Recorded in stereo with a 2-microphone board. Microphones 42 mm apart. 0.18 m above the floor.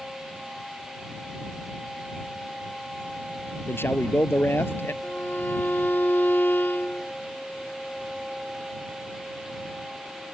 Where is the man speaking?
70° left (ahead or behind).